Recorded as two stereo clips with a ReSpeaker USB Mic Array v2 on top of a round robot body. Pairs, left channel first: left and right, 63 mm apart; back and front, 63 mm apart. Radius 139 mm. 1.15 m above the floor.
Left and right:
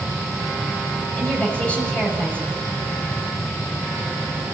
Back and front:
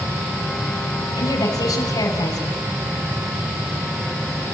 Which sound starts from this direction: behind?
A woman speaking, at 1.1 s.